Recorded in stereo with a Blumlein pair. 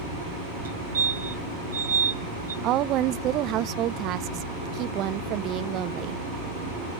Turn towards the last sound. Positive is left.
turn(degrees=-35)